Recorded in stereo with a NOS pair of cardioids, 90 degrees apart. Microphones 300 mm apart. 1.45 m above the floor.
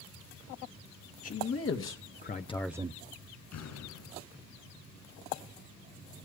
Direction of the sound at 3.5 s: 65° left.